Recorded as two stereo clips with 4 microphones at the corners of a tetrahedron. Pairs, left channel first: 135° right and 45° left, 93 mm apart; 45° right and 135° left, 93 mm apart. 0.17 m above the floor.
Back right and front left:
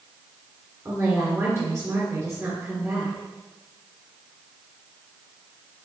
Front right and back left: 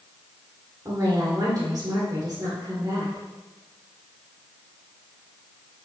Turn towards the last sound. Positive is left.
turn(degrees=100)